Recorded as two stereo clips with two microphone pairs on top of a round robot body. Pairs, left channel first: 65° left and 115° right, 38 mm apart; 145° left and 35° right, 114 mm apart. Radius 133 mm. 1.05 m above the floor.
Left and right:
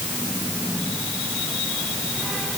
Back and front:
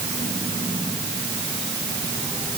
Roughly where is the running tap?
No running tap in this recording.